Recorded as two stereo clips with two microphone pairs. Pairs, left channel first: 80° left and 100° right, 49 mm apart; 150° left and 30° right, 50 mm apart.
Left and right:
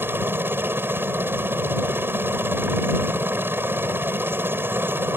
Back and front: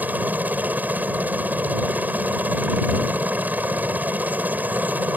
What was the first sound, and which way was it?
A helicopter, 75° right.